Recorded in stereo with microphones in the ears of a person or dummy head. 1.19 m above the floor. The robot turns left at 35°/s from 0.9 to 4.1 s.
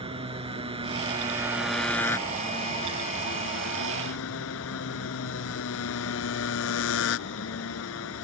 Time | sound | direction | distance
0.0 | a motorcycle | 155° right | ?